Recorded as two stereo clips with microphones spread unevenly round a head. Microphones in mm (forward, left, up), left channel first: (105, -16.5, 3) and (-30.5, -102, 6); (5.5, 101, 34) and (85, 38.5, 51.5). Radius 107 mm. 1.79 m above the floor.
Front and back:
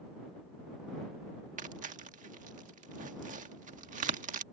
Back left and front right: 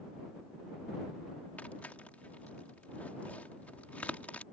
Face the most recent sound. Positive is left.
turn(degrees=-125)